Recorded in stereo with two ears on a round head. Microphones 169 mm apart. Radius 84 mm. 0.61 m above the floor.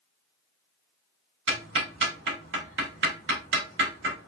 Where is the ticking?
65° right (ahead or behind), 2 m.